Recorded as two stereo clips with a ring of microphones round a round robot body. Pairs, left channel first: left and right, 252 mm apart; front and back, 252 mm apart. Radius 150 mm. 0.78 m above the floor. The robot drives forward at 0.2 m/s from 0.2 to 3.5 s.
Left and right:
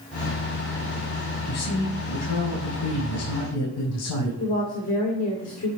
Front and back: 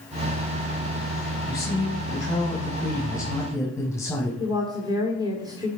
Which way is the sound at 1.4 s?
75° left.